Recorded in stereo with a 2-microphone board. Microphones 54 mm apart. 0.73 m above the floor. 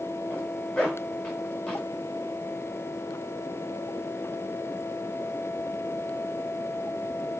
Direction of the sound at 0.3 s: 15° left (ahead or behind).